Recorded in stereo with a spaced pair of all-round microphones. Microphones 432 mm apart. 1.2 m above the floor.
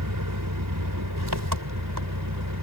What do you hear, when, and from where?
0.0 s an engine running: 45° right (ahead or behind)